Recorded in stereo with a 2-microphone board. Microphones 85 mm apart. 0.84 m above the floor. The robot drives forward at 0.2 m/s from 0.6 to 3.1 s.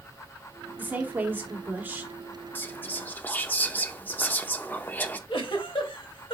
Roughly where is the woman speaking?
Right.